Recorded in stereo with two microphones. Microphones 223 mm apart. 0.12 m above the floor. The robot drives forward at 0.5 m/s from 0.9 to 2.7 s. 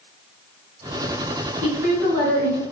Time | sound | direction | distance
1.6 | a woman speaking | 15° right (ahead or behind) | 1.6 m